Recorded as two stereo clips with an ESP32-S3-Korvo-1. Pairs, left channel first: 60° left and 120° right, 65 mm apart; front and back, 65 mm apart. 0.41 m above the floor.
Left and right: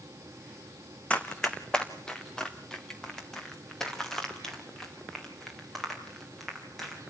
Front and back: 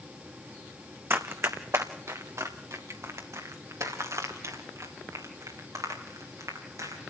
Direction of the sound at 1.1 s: 130° left.